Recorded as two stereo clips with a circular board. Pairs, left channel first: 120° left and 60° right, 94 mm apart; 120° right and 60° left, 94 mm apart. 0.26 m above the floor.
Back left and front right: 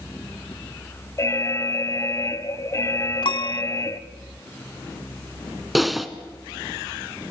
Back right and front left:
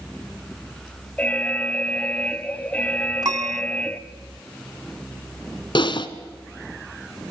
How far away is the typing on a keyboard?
About 1.2 m.